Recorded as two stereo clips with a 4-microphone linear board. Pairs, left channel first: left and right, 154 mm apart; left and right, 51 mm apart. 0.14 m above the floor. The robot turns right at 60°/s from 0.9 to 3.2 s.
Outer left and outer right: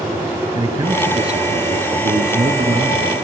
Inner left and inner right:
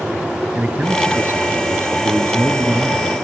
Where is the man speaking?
145° right, 2.5 m; by 3.1 s 10° right, 2.5 m.